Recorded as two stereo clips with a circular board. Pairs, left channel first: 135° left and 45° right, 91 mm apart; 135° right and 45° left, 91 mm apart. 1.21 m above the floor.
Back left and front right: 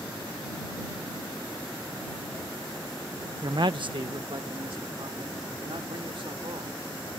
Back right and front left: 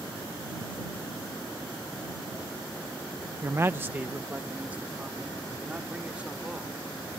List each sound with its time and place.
3.4 s a man speaking: 5° right; by 6.8 s 30° right